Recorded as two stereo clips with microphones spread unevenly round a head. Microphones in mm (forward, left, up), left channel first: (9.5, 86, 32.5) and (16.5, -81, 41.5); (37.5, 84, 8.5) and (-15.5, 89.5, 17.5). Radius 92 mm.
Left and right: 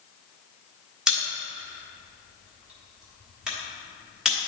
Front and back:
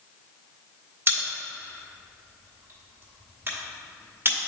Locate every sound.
1.1 s a pop: 170° right, 1.3 m